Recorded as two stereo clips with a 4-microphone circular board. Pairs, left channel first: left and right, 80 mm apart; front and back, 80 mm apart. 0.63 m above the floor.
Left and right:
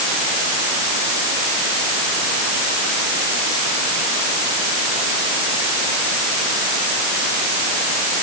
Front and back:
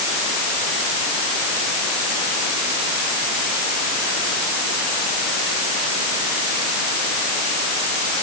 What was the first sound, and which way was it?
Only background noise.